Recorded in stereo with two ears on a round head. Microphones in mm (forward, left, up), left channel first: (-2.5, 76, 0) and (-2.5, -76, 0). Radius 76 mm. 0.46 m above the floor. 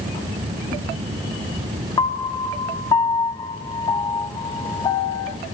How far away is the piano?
About 0.5 m.